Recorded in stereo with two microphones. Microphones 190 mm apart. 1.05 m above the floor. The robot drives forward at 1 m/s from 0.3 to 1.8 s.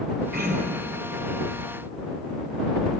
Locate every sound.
0.3 s throat clearing: 60° right (ahead or behind), 2.5 m; by 1.0 s 50° right (ahead or behind), 3 m